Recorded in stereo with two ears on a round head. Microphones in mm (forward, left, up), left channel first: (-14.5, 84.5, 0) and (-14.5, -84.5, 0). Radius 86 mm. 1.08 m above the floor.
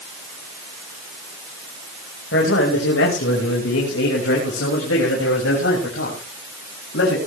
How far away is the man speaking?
About 5 m.